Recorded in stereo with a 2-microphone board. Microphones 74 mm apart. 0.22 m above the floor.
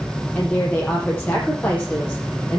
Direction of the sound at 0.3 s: 25° left (ahead or behind).